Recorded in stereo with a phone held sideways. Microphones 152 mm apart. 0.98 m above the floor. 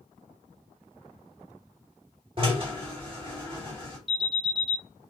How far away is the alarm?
About 5 m.